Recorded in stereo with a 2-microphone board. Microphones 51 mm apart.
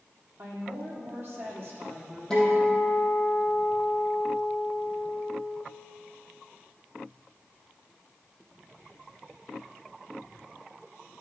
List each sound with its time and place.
0.4 s a woman speaking: 45° right (ahead or behind), 3 m; by 2.2 s 35° right (ahead or behind), 3.5 m
2.3 s a guitar: 15° left (ahead or behind), 4 m